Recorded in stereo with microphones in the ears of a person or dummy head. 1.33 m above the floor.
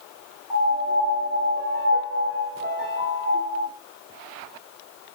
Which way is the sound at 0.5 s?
Centre (ahead or behind).